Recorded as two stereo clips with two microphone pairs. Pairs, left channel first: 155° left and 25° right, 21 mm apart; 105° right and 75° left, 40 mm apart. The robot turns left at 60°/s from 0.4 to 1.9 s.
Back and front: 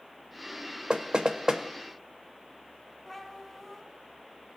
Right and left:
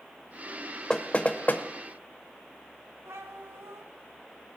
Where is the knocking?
40° right, 0.8 m; by 1.6 s 80° right, 0.8 m.